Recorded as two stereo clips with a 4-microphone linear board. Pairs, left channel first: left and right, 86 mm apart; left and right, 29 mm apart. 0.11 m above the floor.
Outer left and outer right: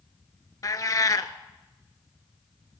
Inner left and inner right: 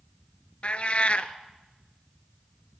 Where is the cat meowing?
45° left (ahead or behind), 0.5 m.